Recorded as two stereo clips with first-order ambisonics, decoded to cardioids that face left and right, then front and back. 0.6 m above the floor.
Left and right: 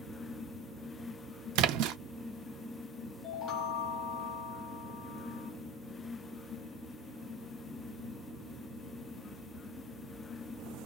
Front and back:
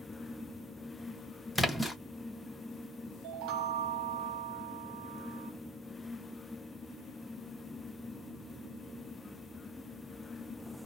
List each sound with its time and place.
1.6 s a splash: 85° right, 0.5 m
3.2 s a chime: 145° left, 0.6 m